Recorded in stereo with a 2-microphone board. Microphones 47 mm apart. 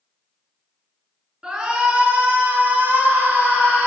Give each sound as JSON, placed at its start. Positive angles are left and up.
{"t": 1.4, "sound": "a shout", "side_deg": -15, "distance_m": 2.5}